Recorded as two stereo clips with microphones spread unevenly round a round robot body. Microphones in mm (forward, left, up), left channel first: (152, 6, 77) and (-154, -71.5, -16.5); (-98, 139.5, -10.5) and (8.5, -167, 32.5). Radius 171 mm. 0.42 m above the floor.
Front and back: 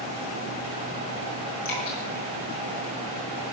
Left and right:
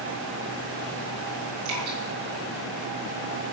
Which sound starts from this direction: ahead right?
Dripping, at 1.6 s.